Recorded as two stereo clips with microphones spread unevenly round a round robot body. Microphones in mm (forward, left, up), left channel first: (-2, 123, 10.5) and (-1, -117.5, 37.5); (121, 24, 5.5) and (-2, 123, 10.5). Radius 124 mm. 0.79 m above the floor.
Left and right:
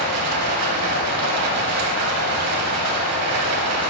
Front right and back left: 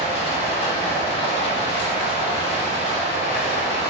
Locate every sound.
0.0 s running water: 105° right, 1.3 m